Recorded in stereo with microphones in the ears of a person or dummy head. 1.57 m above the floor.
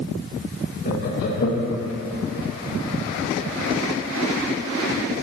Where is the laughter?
60° left (ahead or behind), 1.9 m.